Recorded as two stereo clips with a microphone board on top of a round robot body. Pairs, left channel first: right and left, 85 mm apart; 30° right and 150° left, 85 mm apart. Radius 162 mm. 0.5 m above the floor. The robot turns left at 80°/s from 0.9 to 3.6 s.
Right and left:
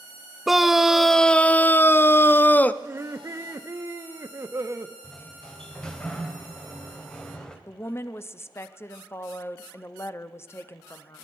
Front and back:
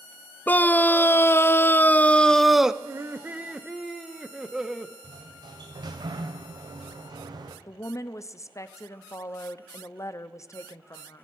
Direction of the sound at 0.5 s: 10° left.